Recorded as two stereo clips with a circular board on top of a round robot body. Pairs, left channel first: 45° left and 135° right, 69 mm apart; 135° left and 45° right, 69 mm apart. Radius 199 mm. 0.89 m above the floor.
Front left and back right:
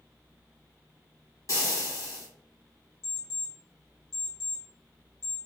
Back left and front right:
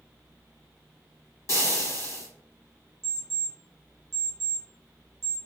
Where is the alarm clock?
10° left, 0.6 m.